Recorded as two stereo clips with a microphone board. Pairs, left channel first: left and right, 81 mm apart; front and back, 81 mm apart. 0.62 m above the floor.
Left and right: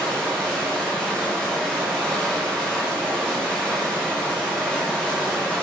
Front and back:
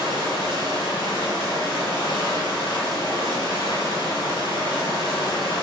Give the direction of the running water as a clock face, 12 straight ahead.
12 o'clock.